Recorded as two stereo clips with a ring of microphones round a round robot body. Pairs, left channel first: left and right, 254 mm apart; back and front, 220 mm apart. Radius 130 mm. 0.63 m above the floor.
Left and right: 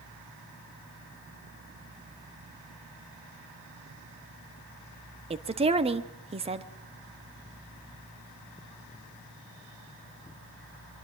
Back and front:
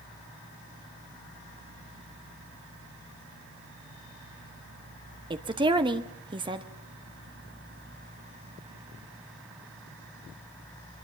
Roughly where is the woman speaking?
Ahead right.